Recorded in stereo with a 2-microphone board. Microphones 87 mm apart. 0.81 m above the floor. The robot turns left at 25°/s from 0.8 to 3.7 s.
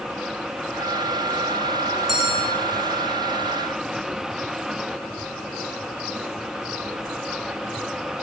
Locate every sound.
2.1 s a bell: 5° right (ahead or behind), 1.1 m; by 2.5 s 5° left (ahead or behind), 1.1 m